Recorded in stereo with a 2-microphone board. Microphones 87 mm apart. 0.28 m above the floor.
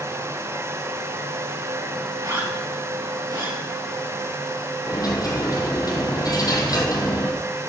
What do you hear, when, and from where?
2.2 s a zipper: 50° right (ahead or behind), 5 m
4.9 s a dropped coin: 45° left (ahead or behind), 2 m